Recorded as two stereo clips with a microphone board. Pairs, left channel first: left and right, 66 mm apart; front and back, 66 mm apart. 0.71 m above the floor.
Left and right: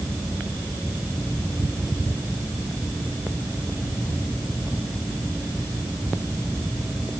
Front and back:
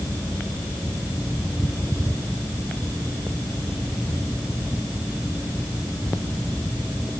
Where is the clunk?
No clunk in this recording.